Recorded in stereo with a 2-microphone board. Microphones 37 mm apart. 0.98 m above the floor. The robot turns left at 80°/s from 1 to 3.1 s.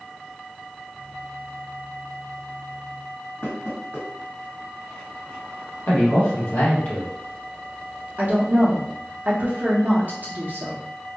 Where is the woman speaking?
45° right (ahead or behind), 0.6 m.